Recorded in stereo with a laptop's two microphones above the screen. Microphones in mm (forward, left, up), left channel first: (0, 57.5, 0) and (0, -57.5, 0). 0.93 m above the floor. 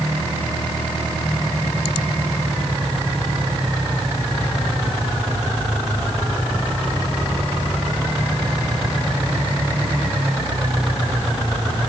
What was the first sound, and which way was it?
Only background noise.